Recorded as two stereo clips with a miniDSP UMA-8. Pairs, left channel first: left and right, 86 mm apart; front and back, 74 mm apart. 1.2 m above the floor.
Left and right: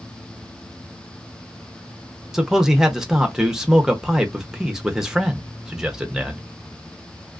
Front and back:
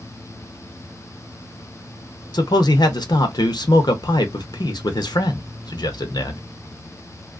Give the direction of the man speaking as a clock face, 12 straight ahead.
12 o'clock.